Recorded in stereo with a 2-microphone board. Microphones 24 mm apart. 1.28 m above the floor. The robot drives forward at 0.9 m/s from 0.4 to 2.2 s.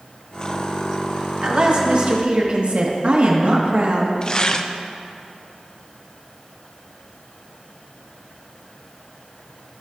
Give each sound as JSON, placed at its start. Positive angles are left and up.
{"t": 1.4, "sound": "a woman speaking", "side_deg": -45, "distance_m": 2.5}
{"t": 4.2, "sound": "tearing paper", "side_deg": 35, "distance_m": 0.5}